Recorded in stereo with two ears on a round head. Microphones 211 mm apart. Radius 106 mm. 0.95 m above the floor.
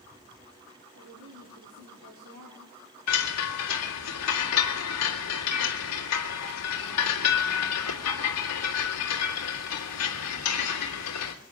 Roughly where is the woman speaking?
Right.